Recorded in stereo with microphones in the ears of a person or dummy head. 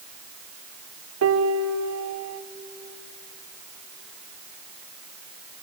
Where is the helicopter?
No helicopter in this recording.